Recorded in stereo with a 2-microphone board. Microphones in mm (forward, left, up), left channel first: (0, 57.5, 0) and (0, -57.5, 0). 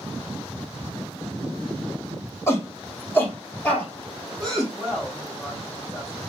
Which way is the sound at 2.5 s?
25° left (ahead or behind).